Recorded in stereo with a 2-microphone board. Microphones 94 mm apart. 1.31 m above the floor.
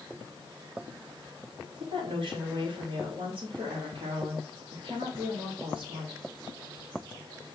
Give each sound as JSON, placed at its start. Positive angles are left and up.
{"t": 1.8, "sound": "a woman speaking", "side_deg": -75, "distance_m": 3.5}